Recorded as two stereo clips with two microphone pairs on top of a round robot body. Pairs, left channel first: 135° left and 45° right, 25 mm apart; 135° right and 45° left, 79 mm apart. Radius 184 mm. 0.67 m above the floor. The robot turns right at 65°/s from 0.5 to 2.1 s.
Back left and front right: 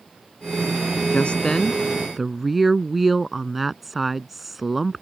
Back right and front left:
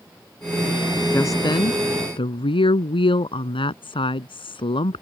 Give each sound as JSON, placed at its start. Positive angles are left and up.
{"t": 1.1, "sound": "a woman speaking", "azimuth_deg": 160}